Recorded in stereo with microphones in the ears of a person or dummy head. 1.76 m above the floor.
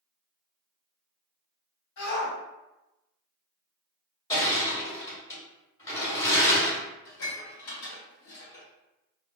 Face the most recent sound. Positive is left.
turn(degrees=60)  # may be behind; listen again after turning